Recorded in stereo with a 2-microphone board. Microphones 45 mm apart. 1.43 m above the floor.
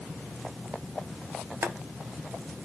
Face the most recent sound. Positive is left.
turn(degrees=-65)  # may be behind; listen again after turning